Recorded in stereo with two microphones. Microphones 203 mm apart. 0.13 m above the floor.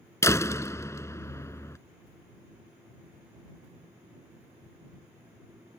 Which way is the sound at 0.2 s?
15° left (ahead or behind).